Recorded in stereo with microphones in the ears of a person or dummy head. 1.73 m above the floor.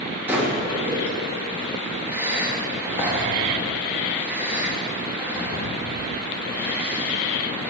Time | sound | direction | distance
0.3 | breathing | 10° right (ahead or behind) | 3.5 m